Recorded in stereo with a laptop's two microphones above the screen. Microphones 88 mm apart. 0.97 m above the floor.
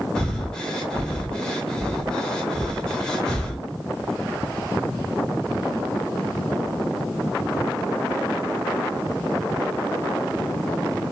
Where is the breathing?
10° left (ahead or behind), 0.8 m.